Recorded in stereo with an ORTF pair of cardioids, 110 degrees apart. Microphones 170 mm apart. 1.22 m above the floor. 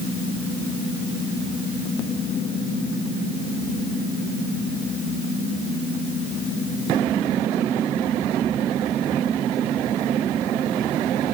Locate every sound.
Only background noise.